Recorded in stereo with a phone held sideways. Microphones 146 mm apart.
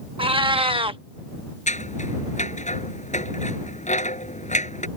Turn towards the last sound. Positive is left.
turn(degrees=55)  # may be behind; listen again after turning